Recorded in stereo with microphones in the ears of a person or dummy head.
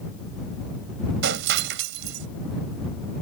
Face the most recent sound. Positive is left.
turn(degrees=-65)  # may be behind; listen again after turning